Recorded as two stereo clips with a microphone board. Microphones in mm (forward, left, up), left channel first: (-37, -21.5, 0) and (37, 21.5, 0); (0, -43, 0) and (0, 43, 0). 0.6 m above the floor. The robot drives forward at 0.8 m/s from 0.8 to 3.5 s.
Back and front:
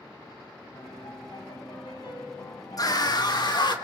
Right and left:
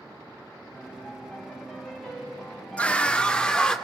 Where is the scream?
155° right, 1.0 m; by 3.8 s 165° right, 1.5 m.